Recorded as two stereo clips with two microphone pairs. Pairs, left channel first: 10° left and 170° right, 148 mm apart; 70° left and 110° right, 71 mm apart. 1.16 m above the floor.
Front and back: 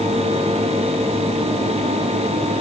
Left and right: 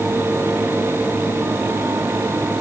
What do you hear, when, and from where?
Only background noise.